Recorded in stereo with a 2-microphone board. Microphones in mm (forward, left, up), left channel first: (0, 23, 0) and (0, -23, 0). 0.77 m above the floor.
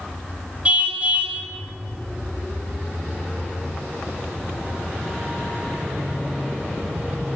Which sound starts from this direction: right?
A car horn, at 0.7 s.